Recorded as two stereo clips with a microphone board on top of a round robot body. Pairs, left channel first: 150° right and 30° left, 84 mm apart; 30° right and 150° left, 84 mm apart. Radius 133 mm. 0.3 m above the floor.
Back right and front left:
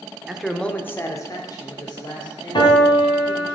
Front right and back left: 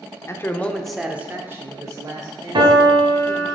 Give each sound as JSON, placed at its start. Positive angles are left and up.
{"t": 0.3, "sound": "a man speaking", "azimuth_deg": -55, "distance_m": 1.0}
{"t": 2.5, "sound": "a piano", "azimuth_deg": 180, "distance_m": 2.0}